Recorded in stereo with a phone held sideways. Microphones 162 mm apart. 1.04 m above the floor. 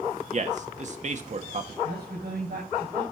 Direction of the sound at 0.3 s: 50° right (ahead or behind).